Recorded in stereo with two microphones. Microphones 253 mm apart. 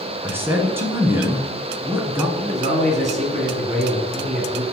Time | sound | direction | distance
0.2 | a man speaking | 10° right (ahead or behind) | 1.3 m
2.4 | a man speaking | 25° right (ahead or behind) | 1.7 m